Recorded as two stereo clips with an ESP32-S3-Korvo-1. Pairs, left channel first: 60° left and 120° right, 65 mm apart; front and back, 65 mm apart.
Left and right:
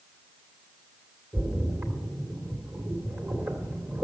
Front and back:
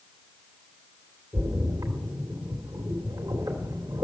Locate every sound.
1.3 s a splash: 170° right, 2 m